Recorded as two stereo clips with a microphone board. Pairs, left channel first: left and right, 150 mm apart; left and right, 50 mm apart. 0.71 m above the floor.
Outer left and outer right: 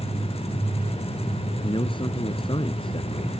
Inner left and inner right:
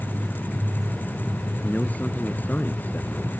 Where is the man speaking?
35° left (ahead or behind).